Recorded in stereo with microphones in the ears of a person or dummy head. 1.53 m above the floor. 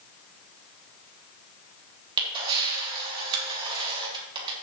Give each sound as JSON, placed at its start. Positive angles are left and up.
{"t": 2.2, "sound": "a camera shutter", "side_deg": -25, "distance_m": 3.0}